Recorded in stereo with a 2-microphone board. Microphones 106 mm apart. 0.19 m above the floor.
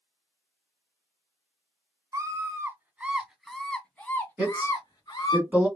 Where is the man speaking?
15° right (ahead or behind), 2 m.